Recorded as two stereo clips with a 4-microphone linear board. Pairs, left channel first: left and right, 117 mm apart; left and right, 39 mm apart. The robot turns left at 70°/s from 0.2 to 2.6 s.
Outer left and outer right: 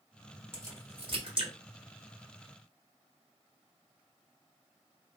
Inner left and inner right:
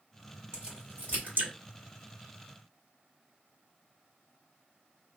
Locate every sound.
0.5 s a crack: 20° right (ahead or behind), 1.8 m; by 1.5 s 55° right (ahead or behind), 1.8 m